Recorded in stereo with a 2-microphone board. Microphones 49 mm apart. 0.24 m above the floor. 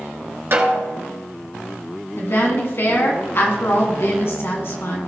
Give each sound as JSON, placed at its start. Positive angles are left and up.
{"t": 0.5, "sound": "a snare drum", "side_deg": -55, "distance_m": 1.7}
{"t": 2.2, "sound": "a woman speaking", "side_deg": 55, "distance_m": 2.0}